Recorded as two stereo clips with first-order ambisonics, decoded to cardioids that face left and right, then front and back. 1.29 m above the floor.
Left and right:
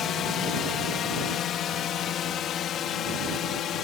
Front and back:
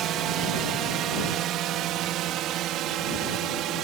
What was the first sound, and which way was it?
A drone, 140° left.